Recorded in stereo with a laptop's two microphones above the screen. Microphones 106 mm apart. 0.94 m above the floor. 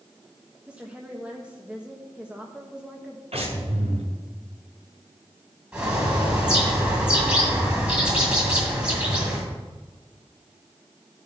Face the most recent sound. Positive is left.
turn(degrees=-10)  # may be behind; listen again after turning